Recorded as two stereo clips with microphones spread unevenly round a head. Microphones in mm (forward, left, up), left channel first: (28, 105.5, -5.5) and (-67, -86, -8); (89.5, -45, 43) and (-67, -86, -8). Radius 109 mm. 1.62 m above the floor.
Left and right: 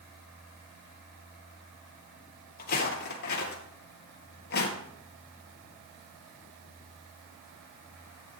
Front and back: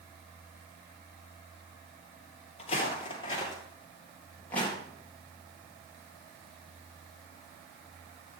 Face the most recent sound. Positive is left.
turn(degrees=80)